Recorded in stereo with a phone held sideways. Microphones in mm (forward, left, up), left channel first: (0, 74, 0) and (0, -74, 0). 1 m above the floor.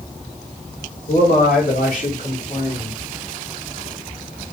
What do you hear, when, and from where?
1.1 s a man speaking: 60° left (ahead or behind), 1.8 m